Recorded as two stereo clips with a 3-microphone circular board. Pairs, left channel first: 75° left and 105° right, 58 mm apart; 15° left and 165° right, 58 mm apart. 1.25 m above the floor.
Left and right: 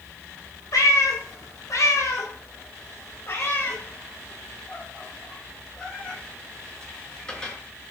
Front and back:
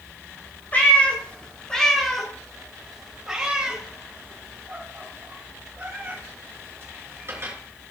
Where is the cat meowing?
75° left, 2.0 m; by 7.5 s 150° left, 4 m.